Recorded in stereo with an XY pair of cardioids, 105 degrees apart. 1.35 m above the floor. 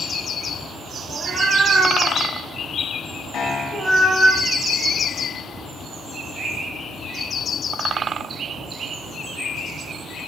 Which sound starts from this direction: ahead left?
A piano, at 3.3 s.